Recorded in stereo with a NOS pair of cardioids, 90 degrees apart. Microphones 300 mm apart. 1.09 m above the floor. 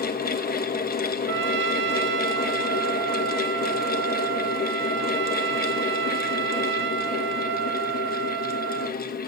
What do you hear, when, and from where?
0.0 s a fan: 30° left, 1.0 m
1.3 s a trumpet: 40° right, 0.6 m